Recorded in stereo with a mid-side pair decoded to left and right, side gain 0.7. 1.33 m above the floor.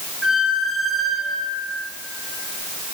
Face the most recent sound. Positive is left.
turn(degrees=25)